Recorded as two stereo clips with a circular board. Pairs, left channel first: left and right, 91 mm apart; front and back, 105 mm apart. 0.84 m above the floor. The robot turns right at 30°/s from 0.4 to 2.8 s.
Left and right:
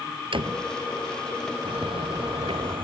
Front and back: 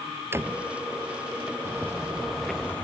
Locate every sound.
0.3 s a door slam: 110° right; by 0.7 s 105° right
1.6 s footsteps: 110° right; by 2.9 s 75° right